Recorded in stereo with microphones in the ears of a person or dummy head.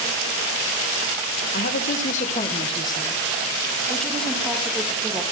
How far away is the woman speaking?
About 1.4 m.